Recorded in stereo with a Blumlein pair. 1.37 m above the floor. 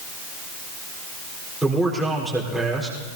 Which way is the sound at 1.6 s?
5° right.